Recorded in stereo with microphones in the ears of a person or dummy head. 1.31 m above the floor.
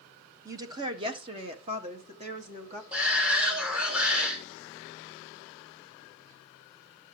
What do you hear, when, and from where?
0.5 s a woman speaking: 15° right (ahead or behind), 1.0 m; by 2.8 s 40° right (ahead or behind), 2.5 m
2.9 s a shout: 5° right (ahead or behind), 1.1 m